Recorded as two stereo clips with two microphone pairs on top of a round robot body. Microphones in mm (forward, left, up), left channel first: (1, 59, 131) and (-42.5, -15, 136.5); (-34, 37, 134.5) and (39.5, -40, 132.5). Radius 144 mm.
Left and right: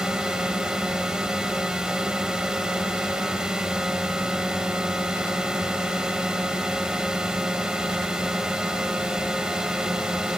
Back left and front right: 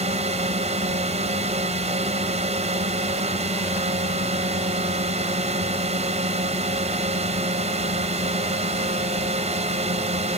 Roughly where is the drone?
Ahead right.